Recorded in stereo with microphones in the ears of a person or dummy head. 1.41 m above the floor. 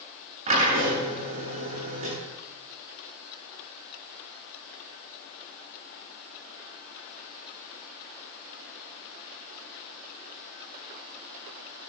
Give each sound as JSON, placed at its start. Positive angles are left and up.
{"t": 0.5, "sound": "a drill", "side_deg": -40, "distance_m": 9.5}